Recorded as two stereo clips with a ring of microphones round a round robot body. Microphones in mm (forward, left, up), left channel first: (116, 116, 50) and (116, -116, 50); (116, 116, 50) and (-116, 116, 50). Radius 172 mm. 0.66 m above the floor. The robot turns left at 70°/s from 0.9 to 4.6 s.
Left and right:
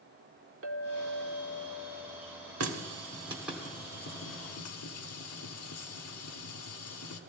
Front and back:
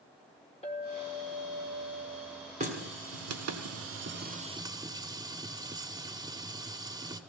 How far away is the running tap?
About 1.1 m.